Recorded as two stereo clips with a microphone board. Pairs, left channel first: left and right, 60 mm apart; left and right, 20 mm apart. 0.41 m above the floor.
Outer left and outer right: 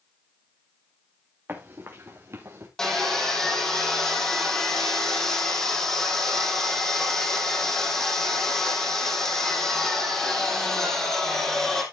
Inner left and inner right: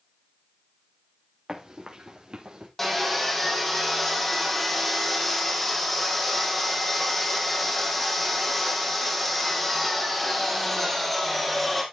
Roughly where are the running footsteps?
Right.